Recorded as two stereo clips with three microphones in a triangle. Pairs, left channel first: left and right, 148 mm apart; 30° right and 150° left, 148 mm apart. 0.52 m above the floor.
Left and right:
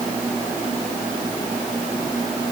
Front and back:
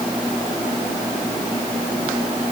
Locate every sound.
Only background noise.